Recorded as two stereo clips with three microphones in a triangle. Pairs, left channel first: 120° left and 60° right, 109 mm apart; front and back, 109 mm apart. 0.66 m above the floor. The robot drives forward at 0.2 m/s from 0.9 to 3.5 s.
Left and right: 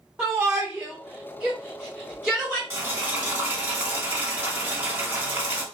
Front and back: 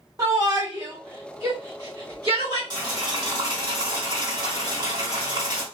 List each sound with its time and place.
0.2 s a shout: 125° right, 1.3 m; by 2.6 s 140° right, 1.5 m
2.7 s boiling: 125° right, 1.3 m; by 5.6 s 130° right, 1.4 m